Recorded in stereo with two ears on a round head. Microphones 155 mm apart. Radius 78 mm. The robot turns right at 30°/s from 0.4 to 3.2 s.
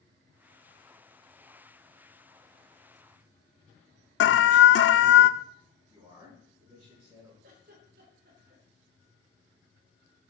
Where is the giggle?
55° right (ahead or behind), 3 m.